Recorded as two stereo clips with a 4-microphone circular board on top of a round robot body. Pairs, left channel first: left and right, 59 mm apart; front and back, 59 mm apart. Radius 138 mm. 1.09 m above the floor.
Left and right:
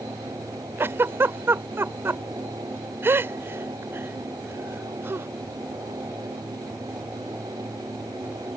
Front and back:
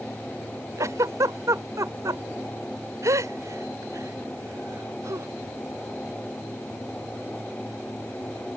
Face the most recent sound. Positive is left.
turn(degrees=-140)